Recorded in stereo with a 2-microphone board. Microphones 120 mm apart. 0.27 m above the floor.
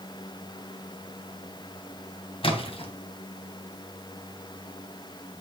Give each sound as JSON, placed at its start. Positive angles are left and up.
{"t": 2.4, "sound": "a splash", "side_deg": 50, "distance_m": 2.0}